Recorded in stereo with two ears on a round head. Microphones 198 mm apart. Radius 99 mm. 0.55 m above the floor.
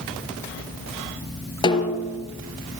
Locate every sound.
1.6 s a snare drum: 20° left (ahead or behind), 4.5 m